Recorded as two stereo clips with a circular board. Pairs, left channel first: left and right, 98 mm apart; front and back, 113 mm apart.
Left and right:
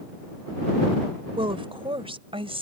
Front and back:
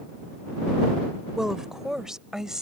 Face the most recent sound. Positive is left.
turn(degrees=-95)